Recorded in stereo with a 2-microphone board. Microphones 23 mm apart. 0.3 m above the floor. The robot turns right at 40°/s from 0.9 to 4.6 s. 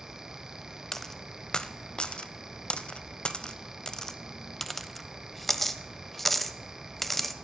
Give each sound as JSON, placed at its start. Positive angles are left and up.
{"t": 0.9, "sound": "a dropped coin", "side_deg": 15, "distance_m": 0.6}